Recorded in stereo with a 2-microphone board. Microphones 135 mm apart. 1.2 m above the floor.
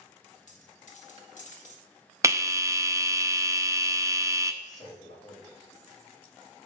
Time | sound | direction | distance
0.5 | a dropped coin | 65° left (ahead or behind) | 1.3 m
2.2 | a bell | 25° right (ahead or behind) | 0.5 m
4.6 | a man speaking | 70° left (ahead or behind) | 3 m